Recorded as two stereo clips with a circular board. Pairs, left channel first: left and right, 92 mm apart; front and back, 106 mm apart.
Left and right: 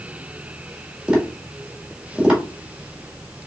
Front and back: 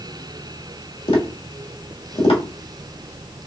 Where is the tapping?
10° right, 1.5 m.